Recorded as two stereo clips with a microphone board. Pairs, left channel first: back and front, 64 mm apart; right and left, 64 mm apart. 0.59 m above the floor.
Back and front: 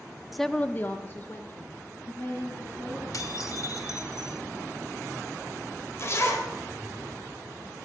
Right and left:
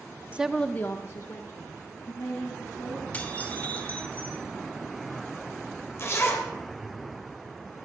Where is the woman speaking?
80° left, 0.6 m; by 3.0 s 125° right, 4 m.